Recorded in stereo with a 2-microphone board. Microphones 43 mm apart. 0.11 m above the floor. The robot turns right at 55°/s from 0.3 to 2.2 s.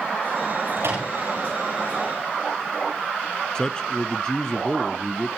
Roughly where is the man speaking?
Centre.